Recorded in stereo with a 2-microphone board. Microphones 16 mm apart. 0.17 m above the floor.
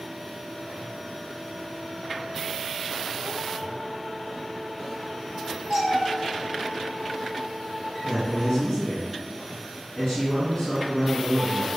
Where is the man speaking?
45° left (ahead or behind), 1.9 m.